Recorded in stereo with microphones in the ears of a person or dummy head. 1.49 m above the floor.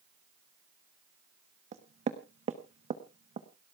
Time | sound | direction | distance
1.7 | knocking | 35° right (ahead or behind) | 1.0 m